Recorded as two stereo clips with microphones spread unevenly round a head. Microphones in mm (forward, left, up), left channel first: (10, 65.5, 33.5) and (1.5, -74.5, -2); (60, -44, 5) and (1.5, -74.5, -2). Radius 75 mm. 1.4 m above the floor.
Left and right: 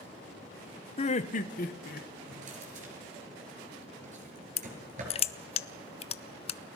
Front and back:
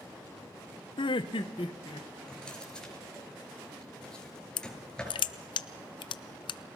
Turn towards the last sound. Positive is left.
turn(degrees=35)